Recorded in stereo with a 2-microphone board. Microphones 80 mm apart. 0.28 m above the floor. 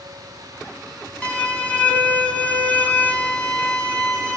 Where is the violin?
20° left (ahead or behind), 1.0 m.